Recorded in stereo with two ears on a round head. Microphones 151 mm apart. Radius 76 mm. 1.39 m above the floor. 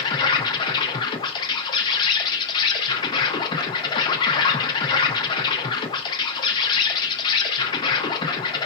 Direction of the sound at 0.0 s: 30° left (ahead or behind).